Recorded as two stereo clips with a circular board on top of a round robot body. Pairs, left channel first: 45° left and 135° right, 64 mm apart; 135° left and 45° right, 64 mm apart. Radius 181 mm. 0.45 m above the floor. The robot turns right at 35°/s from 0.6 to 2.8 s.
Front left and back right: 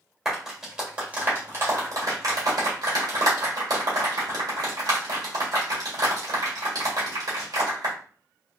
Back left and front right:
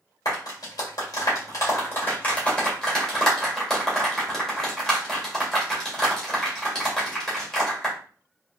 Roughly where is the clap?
Behind left.